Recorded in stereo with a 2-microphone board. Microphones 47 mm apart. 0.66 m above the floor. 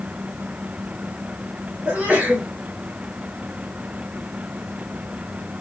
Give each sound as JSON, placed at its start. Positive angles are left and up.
{"t": 1.9, "sound": "a sneeze", "side_deg": -30, "distance_m": 1.5}